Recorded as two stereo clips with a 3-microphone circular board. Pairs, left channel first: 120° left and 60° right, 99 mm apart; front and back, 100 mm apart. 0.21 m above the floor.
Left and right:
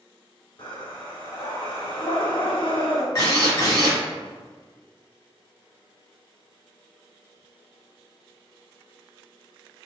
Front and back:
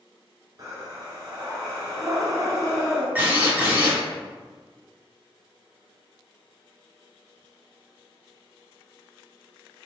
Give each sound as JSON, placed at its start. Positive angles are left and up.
{"t": 0.6, "sound": "breathing", "azimuth_deg": 135, "distance_m": 0.8}
{"t": 3.1, "sound": "a drill", "azimuth_deg": 120, "distance_m": 1.1}